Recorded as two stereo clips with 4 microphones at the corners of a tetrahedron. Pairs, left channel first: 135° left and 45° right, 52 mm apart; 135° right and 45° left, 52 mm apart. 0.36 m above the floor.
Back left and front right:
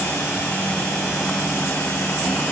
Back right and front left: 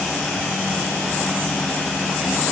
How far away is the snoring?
I don't hear snoring.